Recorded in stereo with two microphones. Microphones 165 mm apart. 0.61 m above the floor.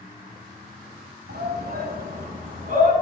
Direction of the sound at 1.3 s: 65° right (ahead or behind).